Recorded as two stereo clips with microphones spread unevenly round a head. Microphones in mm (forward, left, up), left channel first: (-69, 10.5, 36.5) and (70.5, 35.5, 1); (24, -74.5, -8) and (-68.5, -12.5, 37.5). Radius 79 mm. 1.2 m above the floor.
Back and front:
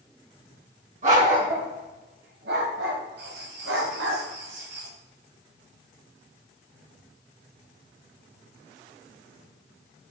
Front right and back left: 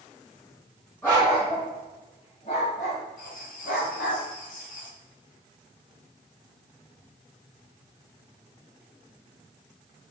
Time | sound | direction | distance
1.0 | a dog barking | 50° left | 4 m
3.2 | writing | 15° left | 1.7 m